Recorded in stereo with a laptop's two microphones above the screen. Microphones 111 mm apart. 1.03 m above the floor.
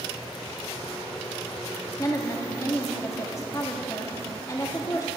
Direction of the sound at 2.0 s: 30° left (ahead or behind).